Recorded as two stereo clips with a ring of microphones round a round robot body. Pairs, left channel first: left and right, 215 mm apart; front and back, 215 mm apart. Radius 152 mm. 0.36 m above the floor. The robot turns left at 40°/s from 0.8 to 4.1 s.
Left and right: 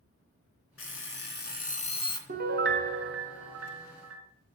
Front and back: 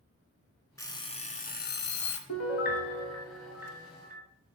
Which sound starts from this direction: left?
An alarm clock, at 0.8 s.